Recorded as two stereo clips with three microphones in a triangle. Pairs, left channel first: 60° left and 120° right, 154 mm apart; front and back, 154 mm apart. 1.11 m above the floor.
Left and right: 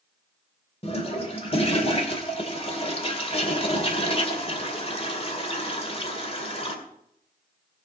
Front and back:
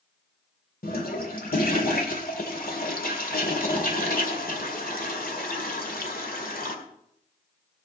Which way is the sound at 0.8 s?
10° left.